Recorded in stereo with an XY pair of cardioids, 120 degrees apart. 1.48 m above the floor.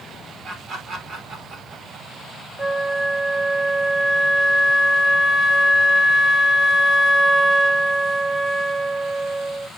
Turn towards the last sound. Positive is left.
turn(degrees=-5)